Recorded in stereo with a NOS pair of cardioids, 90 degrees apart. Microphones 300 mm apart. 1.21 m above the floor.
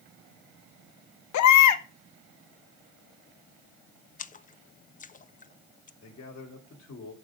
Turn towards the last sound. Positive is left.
turn(degrees=55)